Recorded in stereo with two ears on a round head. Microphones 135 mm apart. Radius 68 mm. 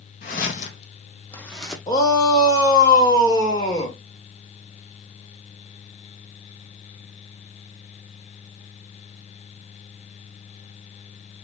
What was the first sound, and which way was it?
Footsteps, 60° left (ahead or behind).